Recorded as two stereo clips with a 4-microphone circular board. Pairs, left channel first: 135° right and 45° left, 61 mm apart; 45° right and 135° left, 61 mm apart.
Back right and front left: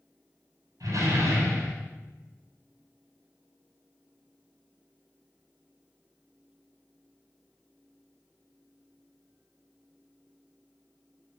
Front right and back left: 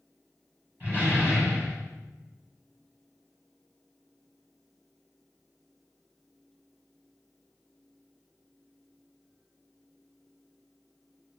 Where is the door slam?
65° left, 6.5 m.